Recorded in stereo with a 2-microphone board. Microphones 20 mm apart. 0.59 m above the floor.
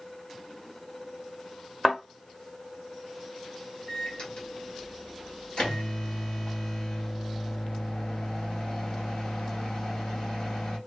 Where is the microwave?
55° left (ahead or behind), 1.6 m.